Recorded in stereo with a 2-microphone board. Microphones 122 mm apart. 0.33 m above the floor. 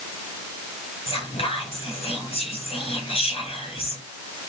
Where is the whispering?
55° left (ahead or behind), 2.5 m.